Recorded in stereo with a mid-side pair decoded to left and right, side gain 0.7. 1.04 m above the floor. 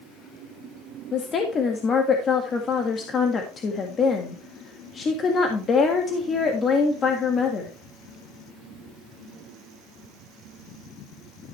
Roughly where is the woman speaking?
Ahead left.